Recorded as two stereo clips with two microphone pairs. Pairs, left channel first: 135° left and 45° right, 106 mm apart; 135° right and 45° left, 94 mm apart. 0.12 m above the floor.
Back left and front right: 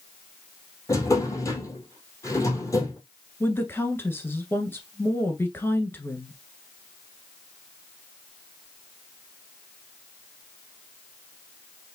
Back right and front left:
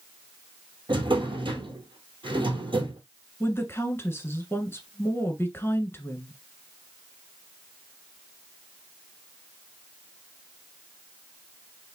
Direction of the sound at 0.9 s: 75° left.